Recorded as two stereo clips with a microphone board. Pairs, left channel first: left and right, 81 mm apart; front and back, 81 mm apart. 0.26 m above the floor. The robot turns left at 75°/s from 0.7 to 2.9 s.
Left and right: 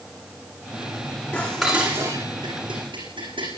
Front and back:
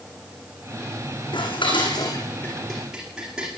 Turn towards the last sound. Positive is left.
turn(degrees=-95)